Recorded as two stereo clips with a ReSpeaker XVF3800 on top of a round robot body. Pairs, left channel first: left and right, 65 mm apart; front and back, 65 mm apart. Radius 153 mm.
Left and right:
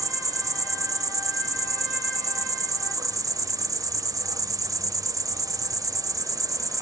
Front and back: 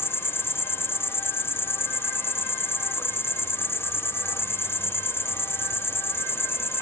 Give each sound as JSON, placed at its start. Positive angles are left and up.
{"t": 0.0, "sound": "an insect", "azimuth_deg": -55, "distance_m": 1.6}